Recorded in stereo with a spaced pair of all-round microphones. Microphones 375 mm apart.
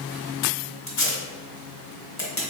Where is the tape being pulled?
45° left (ahead or behind), 1.2 m.